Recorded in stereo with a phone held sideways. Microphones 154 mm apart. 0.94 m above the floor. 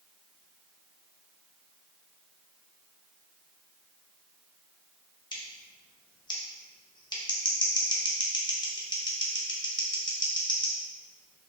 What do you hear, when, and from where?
5.3 s scissors: 30° left (ahead or behind), 0.7 m